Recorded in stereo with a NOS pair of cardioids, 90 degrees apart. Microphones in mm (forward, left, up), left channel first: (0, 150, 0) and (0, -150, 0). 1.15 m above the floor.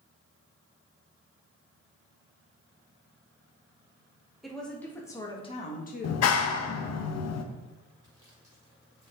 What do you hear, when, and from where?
4.4 s a woman speaking: straight ahead, 2 m; by 7.0 s 65° left, 1.3 m
6.0 s a clap: 55° left, 0.8 m
8.0 s sawing: 10° right, 3 m